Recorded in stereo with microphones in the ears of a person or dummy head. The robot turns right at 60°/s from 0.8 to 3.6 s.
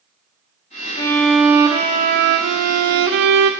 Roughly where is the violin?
Behind left.